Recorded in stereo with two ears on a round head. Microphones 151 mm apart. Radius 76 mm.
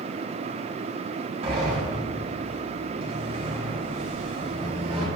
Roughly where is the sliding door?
Right.